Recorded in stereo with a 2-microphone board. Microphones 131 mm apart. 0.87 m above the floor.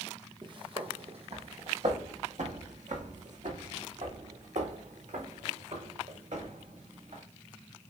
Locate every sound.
0.4 s footsteps: 40° right (ahead or behind), 1.8 m; by 7.2 s 70° right (ahead or behind), 5 m